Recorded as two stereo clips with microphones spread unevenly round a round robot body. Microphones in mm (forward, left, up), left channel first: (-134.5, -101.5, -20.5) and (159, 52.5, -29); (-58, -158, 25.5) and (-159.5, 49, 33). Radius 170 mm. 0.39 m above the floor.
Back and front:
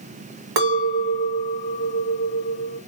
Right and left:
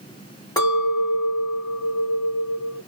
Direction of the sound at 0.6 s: 5° left.